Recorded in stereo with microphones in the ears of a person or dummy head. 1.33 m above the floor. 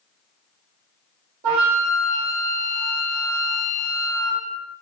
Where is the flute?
60° right (ahead or behind), 1.7 m.